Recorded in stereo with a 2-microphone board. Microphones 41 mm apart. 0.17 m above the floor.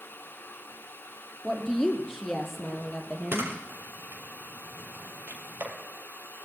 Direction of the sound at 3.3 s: 70° right (ahead or behind).